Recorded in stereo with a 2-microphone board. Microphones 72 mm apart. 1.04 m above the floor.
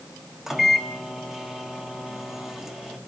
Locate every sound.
0.5 s a microwave: 5° right (ahead or behind), 1.8 m